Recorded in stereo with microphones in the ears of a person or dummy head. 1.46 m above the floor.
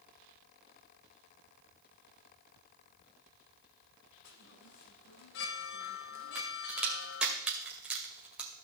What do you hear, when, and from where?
4.2 s a chime: 55° left (ahead or behind), 0.9 m
6.3 s a crack: 5° right (ahead or behind), 1.9 m